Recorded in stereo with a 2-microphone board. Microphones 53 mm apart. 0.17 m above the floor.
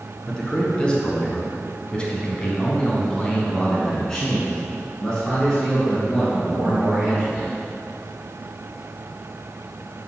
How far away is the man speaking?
About 1.9 m.